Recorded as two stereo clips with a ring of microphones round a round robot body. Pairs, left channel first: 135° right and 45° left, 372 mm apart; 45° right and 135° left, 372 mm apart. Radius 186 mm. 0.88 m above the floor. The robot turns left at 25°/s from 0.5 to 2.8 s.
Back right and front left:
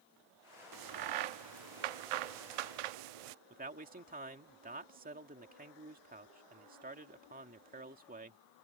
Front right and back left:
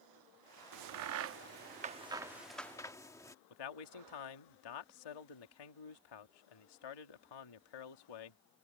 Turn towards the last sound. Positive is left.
turn(degrees=-25)